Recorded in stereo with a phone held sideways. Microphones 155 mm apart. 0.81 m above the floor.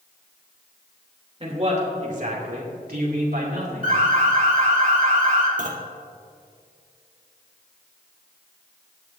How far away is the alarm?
About 2.5 m.